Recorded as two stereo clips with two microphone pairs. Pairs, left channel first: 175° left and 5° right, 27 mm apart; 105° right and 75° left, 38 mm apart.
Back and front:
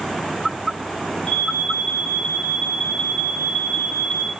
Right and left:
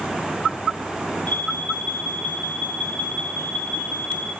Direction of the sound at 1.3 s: 135° right.